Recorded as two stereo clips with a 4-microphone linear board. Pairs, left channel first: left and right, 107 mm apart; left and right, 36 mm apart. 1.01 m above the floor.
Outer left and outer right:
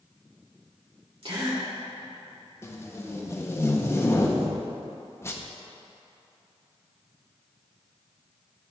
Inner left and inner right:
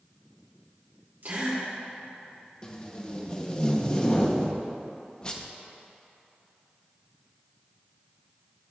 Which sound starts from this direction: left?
Tape being pulled, at 2.6 s.